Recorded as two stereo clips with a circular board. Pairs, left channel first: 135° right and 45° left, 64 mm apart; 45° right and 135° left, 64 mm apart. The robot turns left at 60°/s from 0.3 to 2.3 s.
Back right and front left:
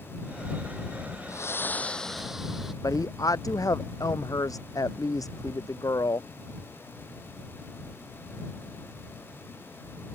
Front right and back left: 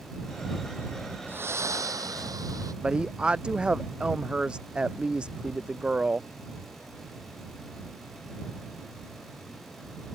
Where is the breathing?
170° right; by 2.7 s 130° left.